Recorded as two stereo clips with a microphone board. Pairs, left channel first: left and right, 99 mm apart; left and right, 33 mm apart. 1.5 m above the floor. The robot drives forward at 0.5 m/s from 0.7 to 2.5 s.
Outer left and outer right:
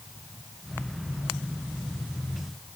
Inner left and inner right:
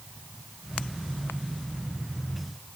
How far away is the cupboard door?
No cupboard door in this recording.